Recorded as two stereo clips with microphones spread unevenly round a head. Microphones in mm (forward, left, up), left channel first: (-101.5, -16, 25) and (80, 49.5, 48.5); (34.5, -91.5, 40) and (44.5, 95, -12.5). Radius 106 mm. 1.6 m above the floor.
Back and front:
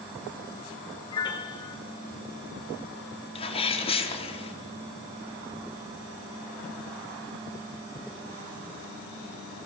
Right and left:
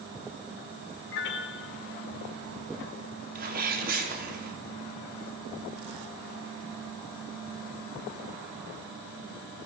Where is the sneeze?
135° left, 4.5 m.